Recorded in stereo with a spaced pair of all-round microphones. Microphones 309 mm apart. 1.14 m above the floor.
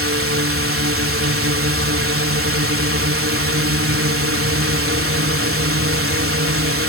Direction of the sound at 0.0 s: 45° right (ahead or behind).